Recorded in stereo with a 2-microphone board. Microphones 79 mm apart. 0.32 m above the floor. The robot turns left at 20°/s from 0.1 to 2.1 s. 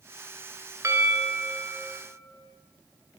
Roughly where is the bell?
Right.